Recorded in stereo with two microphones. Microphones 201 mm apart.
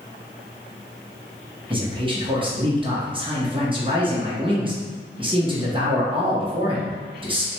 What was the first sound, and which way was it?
A man speaking, 25° right (ahead or behind).